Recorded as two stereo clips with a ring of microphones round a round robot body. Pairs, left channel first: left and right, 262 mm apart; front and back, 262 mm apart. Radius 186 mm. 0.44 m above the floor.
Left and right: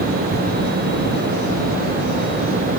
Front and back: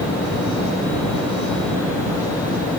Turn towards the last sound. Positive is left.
No sound to turn to.